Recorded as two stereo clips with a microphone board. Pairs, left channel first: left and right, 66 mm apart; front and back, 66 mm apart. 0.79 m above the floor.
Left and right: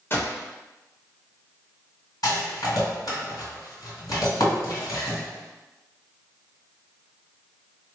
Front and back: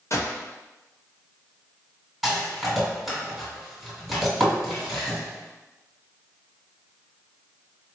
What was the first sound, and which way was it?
A gunshot, 35° left.